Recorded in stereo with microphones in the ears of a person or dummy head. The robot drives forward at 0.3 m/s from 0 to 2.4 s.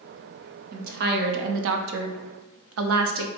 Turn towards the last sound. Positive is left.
turn(degrees=-70)  # may be behind; listen again after turning